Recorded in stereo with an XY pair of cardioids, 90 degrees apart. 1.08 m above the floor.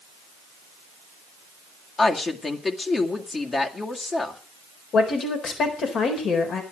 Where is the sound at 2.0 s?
40° left, 2 m.